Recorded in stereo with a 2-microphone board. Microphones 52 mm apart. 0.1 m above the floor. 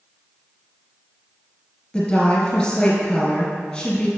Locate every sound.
1.9 s a woman speaking: 15° left (ahead or behind), 1.9 m